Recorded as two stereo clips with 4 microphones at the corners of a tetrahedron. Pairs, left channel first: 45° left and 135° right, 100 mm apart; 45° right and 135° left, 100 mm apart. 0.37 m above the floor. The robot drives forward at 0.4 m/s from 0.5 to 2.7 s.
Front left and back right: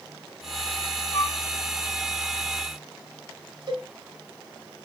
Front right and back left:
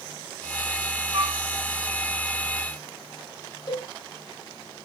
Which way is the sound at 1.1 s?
110° left.